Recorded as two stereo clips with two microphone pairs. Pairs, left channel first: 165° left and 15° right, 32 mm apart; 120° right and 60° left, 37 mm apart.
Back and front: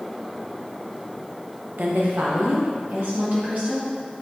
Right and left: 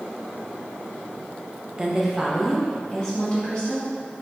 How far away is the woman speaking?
About 1.1 m.